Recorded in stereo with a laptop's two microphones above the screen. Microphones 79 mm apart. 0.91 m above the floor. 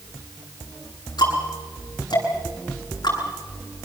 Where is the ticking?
60° left (ahead or behind), 8.5 m.